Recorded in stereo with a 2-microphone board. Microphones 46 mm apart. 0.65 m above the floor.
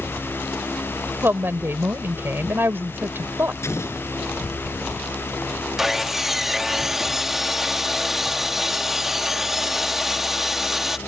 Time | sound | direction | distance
1.2 | a woman speaking | 55° right (ahead or behind) | ?
3.6 | an explosion | 75° left (ahead or behind) | ?
5.8 | sawing | 5° right (ahead or behind) | ?